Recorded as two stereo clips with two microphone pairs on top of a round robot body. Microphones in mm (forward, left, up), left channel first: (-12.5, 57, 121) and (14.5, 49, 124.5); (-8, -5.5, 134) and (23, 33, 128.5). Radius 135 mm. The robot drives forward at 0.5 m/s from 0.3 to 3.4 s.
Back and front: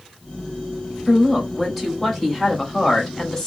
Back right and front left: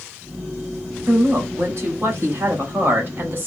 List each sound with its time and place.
1.1 s a woman speaking: 70° left, 2.5 m; by 3.5 s 100° left, 2.5 m